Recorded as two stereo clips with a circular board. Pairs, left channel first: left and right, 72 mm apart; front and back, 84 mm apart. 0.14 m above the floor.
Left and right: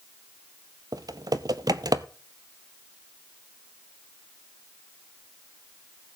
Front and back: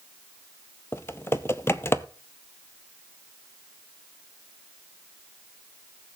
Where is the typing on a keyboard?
60° right, 0.6 m.